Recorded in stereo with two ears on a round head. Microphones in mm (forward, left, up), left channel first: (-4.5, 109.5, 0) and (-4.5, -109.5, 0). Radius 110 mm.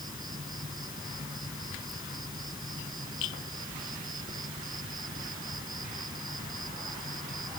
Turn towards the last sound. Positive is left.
turn(degrees=-20)  # may be behind; listen again after turning